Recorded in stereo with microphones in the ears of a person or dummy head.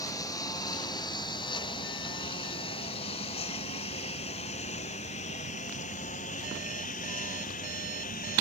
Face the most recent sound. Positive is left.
turn(degrees=40)  # may be behind; listen again after turning